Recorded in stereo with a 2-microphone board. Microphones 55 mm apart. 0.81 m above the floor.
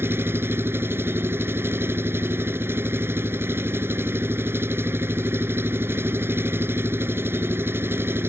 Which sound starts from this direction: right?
An engine running, at 0.0 s.